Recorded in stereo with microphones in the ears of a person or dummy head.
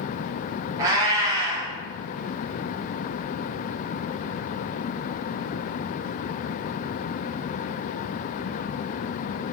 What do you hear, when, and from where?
0.8 s a cat meowing: 25° right (ahead or behind), 0.6 m